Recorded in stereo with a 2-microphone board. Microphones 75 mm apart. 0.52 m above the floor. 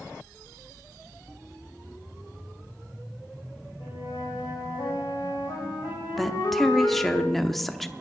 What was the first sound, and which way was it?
A flute, 90° left.